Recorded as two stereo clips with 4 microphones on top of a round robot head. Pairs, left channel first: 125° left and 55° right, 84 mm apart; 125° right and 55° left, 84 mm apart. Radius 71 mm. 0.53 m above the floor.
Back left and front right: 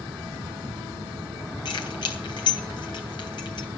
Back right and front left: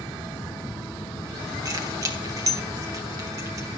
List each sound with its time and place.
1.6 s keys jangling: 100° left, 3 m